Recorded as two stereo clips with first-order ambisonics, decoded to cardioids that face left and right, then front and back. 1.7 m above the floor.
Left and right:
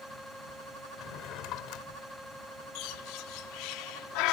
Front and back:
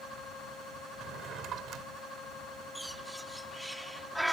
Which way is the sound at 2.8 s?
90° left.